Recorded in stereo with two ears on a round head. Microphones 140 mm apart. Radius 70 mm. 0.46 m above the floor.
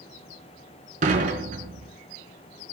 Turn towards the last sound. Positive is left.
turn(degrees=-50)  # may be behind; listen again after turning